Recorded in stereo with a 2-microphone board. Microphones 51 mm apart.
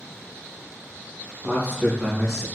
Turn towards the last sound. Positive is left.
turn(degrees=-5)  # may be behind; listen again after turning